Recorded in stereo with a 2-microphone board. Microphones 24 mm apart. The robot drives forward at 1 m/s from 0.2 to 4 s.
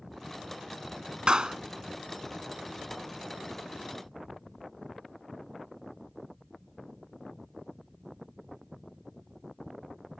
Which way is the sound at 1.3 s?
45° right (ahead or behind).